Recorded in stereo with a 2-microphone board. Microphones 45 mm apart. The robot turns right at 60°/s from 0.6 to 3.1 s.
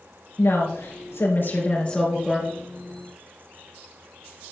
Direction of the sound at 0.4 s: 75° left.